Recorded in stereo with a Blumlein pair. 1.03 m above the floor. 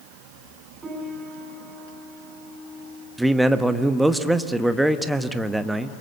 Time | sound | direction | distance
0.8 | a piano | 15° right | 6.5 m
3.2 | a man speaking | 5° right | 1.2 m